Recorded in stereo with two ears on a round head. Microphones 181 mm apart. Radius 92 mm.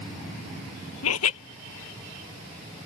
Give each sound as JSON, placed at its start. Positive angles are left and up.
{"t": 1.0, "sound": "laughter", "side_deg": 80}